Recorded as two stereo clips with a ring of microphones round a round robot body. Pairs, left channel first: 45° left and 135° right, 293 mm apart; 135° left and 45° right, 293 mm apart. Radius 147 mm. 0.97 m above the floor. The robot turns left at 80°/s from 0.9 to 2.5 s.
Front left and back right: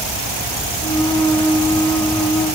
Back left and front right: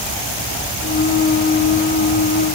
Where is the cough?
No cough in this recording.